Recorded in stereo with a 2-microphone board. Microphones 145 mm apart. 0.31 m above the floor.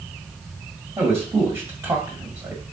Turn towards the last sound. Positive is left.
turn(degrees=-15)  # may be behind; listen again after turning